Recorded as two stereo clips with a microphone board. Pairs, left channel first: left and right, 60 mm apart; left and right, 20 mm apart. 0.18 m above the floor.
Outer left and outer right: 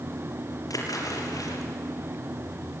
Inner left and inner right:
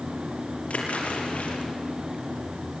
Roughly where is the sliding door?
I don't hear a sliding door.